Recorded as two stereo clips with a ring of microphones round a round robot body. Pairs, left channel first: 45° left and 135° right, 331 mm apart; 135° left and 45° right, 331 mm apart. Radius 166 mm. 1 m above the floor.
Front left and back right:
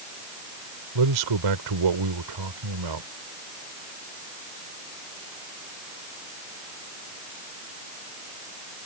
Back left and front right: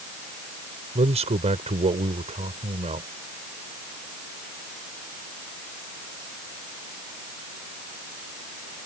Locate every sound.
0.9 s a man speaking: 115° right